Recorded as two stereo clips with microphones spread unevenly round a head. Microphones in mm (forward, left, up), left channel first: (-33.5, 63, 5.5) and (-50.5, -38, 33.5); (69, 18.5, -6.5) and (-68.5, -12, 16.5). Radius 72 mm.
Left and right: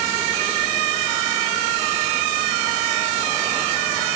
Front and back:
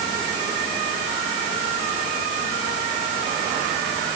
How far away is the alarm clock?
I don't hear an alarm clock.